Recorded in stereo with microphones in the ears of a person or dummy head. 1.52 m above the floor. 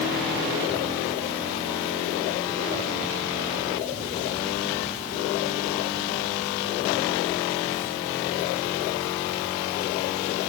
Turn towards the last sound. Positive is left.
No sound to turn to.